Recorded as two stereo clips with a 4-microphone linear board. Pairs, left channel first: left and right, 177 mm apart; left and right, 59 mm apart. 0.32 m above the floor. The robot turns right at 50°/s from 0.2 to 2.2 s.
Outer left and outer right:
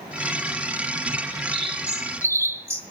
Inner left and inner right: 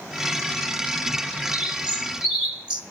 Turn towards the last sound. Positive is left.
turn(degrees=-30)